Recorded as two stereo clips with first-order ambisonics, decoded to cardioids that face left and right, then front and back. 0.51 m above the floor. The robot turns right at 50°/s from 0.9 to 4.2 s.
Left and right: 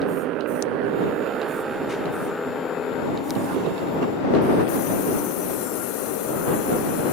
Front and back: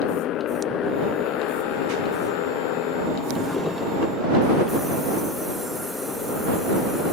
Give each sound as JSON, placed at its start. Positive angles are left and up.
{"t": 0.0, "sound": "a motorcycle", "azimuth_deg": -45}
{"t": 3.4, "sound": "a drawer", "azimuth_deg": -95}